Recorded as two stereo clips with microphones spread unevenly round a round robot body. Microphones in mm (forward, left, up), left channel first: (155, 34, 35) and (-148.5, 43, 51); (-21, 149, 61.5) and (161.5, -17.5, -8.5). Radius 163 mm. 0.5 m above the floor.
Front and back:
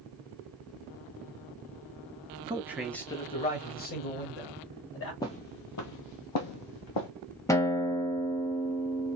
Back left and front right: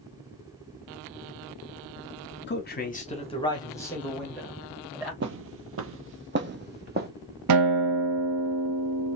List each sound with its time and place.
2.5 s a man speaking: 115° left, 1.2 m; by 5.1 s 40° left, 3 m
5.2 s footsteps: 80° right, 0.5 m; by 7.1 s 15° left, 1.4 m
7.5 s a guitar: 85° right, 0.5 m